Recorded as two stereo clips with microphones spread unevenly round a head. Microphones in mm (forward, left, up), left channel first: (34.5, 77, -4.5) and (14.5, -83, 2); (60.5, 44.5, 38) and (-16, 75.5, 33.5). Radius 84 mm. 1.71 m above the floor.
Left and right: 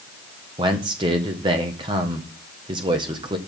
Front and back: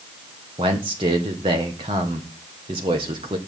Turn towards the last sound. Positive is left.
turn(degrees=-160)